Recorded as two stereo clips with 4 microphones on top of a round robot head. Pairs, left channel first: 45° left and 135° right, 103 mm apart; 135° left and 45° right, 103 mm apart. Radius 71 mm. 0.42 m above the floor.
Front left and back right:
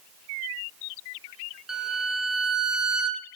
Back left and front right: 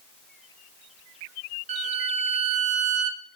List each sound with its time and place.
1.7 s a violin: 55° right, 0.8 m